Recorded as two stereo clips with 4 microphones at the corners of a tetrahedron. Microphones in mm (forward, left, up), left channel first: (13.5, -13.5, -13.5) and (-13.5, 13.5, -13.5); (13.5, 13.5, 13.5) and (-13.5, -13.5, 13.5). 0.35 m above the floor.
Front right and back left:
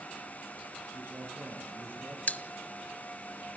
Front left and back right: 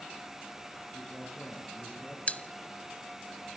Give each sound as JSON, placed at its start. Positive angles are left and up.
{"t": 0.9, "sound": "a man speaking", "azimuth_deg": 115, "distance_m": 7.5}
{"t": 2.3, "sound": "a pop", "azimuth_deg": -5, "distance_m": 1.1}